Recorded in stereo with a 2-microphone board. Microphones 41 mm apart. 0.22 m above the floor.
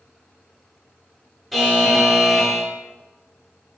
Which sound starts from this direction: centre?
A buzzer, at 1.5 s.